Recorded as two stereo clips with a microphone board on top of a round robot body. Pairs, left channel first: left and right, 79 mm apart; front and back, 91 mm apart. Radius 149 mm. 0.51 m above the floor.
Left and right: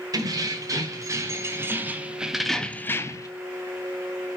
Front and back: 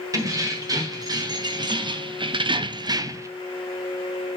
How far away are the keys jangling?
About 1.9 m.